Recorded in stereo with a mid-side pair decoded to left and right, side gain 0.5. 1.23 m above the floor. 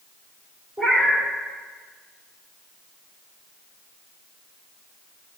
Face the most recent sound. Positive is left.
turn(degrees=-5)